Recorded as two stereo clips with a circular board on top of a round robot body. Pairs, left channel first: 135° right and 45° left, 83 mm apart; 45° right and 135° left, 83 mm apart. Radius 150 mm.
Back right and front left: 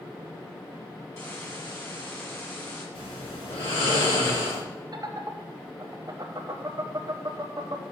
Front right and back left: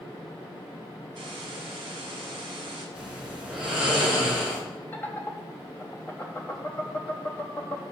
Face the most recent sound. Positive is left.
turn(degrees=10)